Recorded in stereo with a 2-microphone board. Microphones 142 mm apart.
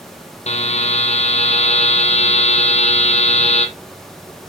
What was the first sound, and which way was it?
A buzzer, 50° left (ahead or behind).